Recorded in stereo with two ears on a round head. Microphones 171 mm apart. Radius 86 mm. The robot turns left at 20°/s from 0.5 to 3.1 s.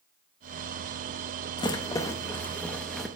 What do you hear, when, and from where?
1.6 s a rattle: 20° left (ahead or behind), 0.8 m; by 3.1 s centre (ahead or behind), 0.8 m